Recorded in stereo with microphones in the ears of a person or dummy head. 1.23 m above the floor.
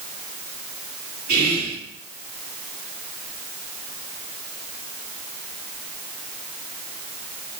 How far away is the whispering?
About 1.5 m.